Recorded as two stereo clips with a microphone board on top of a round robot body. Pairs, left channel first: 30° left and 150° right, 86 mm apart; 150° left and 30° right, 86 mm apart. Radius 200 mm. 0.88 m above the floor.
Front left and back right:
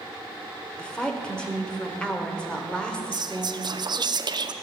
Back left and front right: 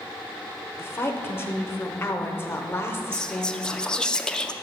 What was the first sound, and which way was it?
A woman speaking, 105° left.